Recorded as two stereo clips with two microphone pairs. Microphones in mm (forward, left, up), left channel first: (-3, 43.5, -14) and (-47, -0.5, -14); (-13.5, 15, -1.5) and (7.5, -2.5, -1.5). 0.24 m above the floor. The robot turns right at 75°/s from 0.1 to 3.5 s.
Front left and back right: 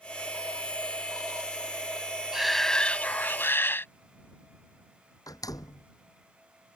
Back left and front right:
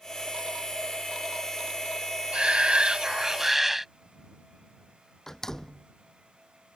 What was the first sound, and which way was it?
A shout, 55° right.